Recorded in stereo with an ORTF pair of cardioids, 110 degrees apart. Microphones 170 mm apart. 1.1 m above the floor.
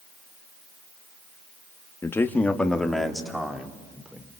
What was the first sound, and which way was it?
A man speaking, 15° left.